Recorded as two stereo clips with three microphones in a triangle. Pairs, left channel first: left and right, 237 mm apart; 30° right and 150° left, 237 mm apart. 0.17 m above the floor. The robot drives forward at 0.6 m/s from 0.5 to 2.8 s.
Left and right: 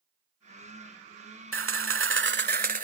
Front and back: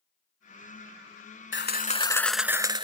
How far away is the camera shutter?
About 0.6 m.